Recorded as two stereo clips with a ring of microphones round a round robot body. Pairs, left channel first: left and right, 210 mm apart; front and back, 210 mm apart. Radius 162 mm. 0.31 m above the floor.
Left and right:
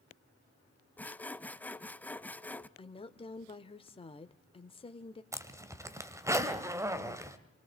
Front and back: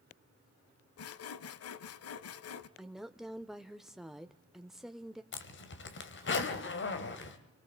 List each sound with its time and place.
1.0 s sawing: 5° left, 0.7 m
2.8 s a woman speaking: 95° left, 0.9 m
5.3 s a zipper: 15° right, 1.7 m